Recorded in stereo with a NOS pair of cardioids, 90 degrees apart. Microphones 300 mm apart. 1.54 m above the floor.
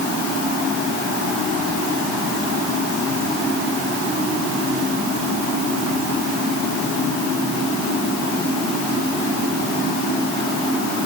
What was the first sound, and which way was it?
Only background noise.